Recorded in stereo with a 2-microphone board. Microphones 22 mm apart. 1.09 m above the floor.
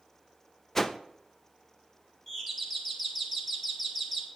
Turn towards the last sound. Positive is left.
turn(degrees=15)  # may be behind; listen again after turning